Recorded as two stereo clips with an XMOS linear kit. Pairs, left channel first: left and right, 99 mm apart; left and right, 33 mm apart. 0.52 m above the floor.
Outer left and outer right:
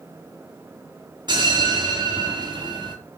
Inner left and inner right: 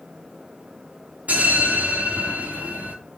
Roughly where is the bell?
Right.